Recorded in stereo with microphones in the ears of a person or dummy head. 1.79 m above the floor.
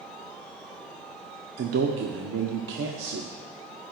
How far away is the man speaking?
About 0.7 m.